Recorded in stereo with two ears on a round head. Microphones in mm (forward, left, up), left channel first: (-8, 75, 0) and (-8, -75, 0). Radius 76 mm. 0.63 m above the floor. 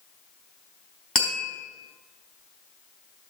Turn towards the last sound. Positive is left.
turn(degrees=5)  # may be behind; listen again after turning